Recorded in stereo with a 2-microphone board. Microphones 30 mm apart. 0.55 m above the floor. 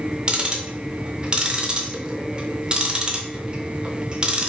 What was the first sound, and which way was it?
Ticking, 30° right (ahead or behind).